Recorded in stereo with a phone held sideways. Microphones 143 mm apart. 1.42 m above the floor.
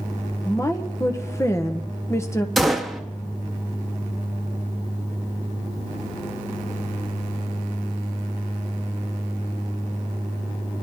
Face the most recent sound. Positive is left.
turn(degrees=0)  # may be behind; listen again after turning